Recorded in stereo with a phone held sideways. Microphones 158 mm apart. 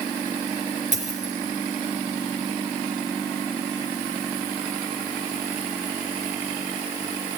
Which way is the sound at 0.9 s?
50° right (ahead or behind).